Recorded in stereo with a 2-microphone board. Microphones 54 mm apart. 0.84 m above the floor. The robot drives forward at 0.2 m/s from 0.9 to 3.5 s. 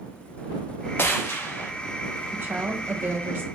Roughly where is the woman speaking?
Right.